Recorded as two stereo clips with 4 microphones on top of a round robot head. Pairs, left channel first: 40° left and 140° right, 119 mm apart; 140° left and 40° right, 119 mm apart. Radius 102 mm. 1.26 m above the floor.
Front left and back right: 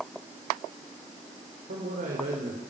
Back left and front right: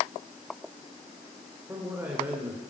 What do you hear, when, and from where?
1.7 s a man speaking: 115° right, 4.5 m